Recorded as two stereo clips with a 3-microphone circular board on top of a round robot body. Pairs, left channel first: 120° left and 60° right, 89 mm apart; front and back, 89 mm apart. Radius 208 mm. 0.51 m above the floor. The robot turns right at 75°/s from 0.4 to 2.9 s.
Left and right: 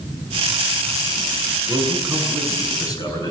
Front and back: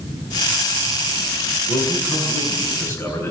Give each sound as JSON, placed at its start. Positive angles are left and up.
{"t": 1.7, "sound": "a man speaking", "azimuth_deg": -20, "distance_m": 8.5}